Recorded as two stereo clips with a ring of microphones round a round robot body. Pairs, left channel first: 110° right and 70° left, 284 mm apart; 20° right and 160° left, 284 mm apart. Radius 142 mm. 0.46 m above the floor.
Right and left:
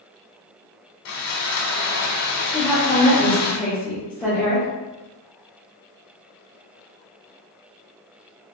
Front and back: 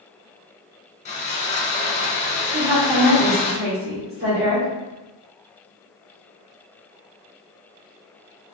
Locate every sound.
1.1 s sawing: 85° right, 1.3 m
2.5 s a woman speaking: 165° left, 1.5 m